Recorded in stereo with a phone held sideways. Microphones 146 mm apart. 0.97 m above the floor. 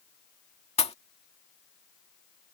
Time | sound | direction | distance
0.8 | a pop | 45° left (ahead or behind) | ?